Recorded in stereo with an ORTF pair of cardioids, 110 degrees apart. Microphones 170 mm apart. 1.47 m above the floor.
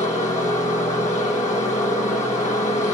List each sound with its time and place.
0.0 s a machine running: 45° left, 1.3 m